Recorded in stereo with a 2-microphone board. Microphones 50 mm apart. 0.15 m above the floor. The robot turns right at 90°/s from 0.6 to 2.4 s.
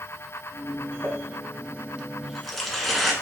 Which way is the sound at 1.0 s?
35° right (ahead or behind).